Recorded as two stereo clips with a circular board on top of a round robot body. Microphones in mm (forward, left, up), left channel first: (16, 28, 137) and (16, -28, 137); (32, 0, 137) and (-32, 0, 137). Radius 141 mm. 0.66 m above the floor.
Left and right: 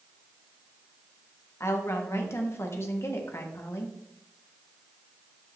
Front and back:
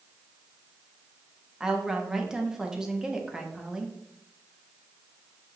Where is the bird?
No bird in this recording.